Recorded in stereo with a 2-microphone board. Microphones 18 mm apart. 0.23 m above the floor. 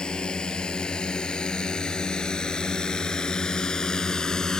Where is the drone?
50° left (ahead or behind); by 4.6 s 35° left (ahead or behind).